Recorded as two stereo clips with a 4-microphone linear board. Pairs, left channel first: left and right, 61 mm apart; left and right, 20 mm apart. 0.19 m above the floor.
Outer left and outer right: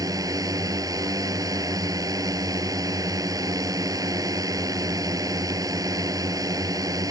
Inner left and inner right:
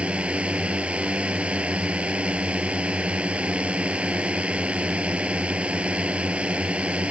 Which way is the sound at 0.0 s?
65° right (ahead or behind).